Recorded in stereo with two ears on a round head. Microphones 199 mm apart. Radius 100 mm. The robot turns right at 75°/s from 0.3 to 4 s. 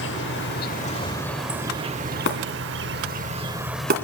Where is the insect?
95° left, 0.7 m; by 4.1 s 15° left, 0.7 m.